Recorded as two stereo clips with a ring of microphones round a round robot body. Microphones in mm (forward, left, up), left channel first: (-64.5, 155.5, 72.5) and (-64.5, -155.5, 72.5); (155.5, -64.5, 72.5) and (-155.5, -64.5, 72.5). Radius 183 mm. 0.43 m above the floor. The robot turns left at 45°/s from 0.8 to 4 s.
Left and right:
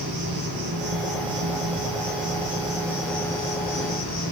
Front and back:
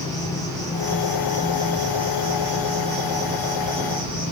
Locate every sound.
0.0 s an insect: 80° right, 6 m; by 4.3 s 140° left, 6 m